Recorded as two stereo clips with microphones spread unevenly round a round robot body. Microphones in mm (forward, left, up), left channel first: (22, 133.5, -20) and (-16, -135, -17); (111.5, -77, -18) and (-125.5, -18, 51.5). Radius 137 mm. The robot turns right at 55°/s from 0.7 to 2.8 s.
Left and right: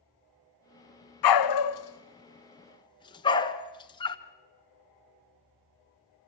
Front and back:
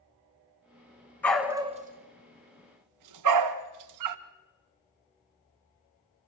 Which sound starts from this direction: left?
A dog barking, at 1.2 s.